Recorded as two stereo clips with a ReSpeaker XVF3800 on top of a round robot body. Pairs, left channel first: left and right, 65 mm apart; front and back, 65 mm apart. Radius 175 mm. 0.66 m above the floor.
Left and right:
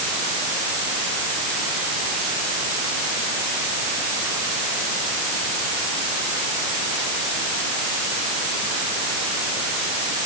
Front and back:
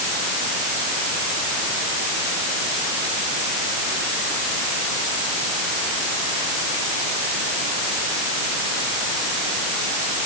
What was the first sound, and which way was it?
Only background noise.